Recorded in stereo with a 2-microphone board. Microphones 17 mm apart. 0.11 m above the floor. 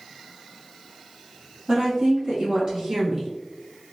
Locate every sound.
1.7 s a woman speaking: 40° right (ahead or behind), 2.0 m; by 3.3 s 20° right (ahead or behind), 1.4 m